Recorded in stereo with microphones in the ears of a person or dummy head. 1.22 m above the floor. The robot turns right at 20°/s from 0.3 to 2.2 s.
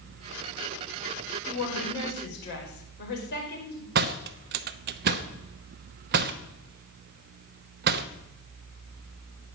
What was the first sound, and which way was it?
A woman speaking, 70° left (ahead or behind).